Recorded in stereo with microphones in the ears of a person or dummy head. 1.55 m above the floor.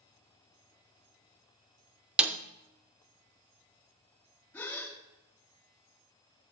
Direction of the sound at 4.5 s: 10° left (ahead or behind).